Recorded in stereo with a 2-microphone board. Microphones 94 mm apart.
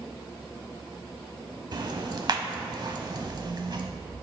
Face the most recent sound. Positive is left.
turn(degrees=-50)  # may be behind; listen again after turning